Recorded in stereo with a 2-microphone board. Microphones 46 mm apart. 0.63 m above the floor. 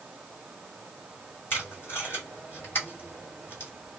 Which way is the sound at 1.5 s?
50° left (ahead or behind).